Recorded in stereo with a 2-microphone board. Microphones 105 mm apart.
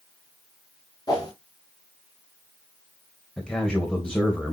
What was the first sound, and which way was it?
A whoosh, 35° left (ahead or behind).